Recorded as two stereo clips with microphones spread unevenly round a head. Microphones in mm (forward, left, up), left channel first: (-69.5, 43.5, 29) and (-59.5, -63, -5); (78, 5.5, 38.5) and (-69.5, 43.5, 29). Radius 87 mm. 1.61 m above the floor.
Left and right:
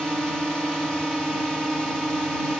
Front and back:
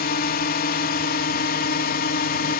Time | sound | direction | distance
0.0 | a drone | 5° left | ?